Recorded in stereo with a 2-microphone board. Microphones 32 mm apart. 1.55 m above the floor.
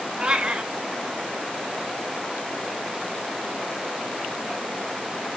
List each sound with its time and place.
0.2 s a cat meowing: 25° right (ahead or behind), 0.9 m